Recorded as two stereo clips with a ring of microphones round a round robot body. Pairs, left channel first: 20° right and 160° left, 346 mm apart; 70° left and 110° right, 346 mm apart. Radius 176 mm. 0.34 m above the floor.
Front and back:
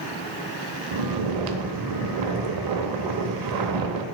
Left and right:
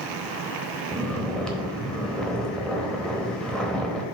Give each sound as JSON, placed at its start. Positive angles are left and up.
{"t": 0.9, "sound": "snoring", "azimuth_deg": 155, "distance_m": 0.8}